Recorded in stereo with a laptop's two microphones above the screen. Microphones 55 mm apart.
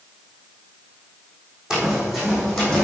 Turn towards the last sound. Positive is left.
turn(degrees=10)  # may be behind; listen again after turning